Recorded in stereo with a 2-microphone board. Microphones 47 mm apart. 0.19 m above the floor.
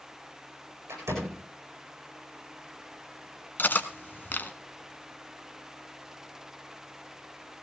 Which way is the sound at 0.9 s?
70° right (ahead or behind).